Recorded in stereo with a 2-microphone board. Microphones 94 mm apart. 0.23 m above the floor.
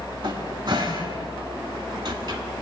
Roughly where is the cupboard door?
Right.